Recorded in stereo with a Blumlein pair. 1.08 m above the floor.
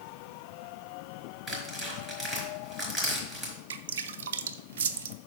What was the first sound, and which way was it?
Tearing paper, 5° right.